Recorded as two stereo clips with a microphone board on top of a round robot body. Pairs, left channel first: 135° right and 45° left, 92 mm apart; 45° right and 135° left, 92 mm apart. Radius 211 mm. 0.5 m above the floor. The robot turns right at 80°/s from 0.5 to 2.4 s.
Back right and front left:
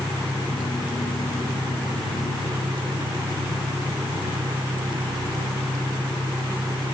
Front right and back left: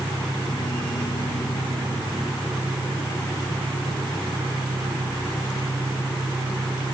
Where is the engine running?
85° right, 2.5 m; by 7.0 s 70° left, 2.5 m.